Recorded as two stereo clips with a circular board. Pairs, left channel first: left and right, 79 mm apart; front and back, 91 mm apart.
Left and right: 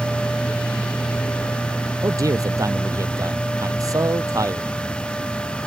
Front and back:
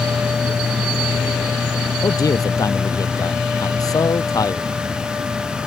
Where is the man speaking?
45° right.